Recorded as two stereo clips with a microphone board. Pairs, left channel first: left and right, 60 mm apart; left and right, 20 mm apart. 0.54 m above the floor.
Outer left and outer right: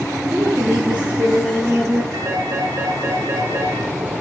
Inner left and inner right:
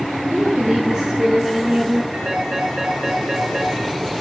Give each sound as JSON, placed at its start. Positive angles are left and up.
{"t": 0.3, "sound": "a woman speaking", "side_deg": -25, "distance_m": 7.5}
{"t": 2.1, "sound": "a phone ringing", "side_deg": -50, "distance_m": 7.5}